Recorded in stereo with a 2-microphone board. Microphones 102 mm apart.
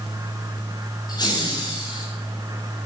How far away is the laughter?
About 4.5 m.